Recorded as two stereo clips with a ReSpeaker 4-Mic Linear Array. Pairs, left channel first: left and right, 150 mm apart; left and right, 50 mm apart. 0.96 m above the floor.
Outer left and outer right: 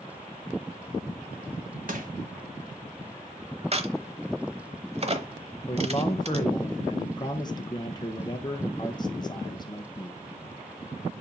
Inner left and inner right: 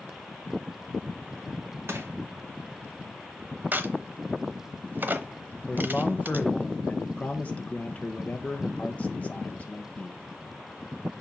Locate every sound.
1.9 s crushing: 65° right (ahead or behind), 1.5 m
3.7 s a crack: 45° right (ahead or behind), 0.9 m
5.7 s a man speaking: 30° left (ahead or behind), 0.7 m